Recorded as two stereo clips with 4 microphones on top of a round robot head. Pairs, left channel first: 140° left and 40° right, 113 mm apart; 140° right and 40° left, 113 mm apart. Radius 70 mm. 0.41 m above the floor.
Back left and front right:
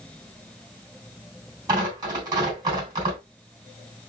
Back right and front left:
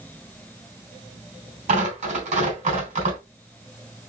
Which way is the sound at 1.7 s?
15° left.